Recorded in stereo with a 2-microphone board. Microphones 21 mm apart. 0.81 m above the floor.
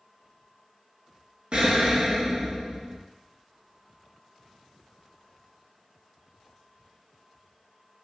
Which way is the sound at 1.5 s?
55° right (ahead or behind).